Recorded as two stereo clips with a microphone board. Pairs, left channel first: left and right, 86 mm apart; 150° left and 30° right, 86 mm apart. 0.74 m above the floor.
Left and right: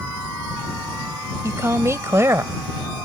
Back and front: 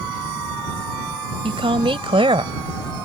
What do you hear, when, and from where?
1.4 s a woman speaking: 30° right; by 3.0 s 25° right